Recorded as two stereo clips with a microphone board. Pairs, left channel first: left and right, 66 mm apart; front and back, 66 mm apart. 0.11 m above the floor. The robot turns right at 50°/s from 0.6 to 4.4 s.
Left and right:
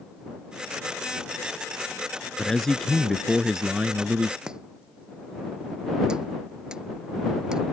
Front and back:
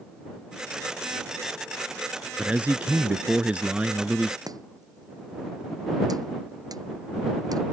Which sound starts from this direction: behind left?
A man speaking, at 2.4 s.